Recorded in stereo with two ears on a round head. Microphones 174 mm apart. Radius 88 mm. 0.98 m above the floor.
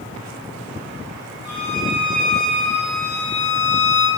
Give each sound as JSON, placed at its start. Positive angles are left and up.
{"t": 1.4, "sound": "a violin", "side_deg": 25, "distance_m": 8.5}